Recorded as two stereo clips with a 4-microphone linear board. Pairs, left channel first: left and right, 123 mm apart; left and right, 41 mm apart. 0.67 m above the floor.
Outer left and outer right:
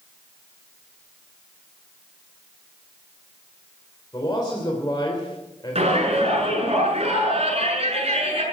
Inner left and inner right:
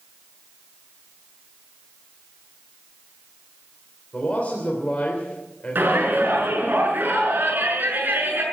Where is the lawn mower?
I don't hear a lawn mower.